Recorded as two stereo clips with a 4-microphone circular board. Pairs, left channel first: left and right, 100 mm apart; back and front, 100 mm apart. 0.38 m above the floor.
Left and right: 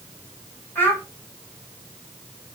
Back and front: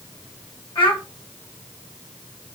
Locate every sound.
0.8 s a child speaking: 155° left, 1.8 m